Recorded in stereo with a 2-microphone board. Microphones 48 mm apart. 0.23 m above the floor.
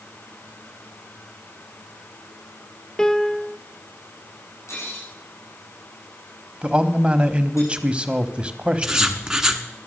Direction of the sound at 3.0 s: 15° left (ahead or behind).